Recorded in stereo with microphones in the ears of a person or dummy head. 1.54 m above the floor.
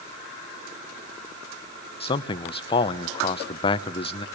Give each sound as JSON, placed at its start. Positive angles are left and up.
{"t": 2.0, "sound": "a man speaking", "side_deg": 30, "distance_m": 0.9}